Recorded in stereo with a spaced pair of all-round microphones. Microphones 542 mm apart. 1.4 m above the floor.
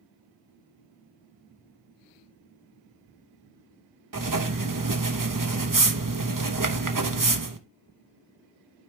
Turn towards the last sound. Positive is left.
turn(degrees=-35)  # may be behind; listen again after turning